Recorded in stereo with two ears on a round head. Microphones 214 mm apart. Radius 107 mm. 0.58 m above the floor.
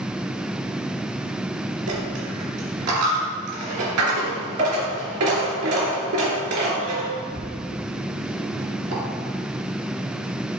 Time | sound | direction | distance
1.9 | a dropped coin | 75° right (ahead or behind) | 3 m